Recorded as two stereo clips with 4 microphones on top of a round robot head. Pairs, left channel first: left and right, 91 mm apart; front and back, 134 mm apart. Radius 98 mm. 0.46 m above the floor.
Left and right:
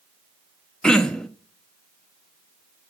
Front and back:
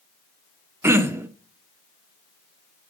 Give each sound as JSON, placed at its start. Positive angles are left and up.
{"t": 0.8, "sound": "throat clearing", "azimuth_deg": 155, "distance_m": 1.0}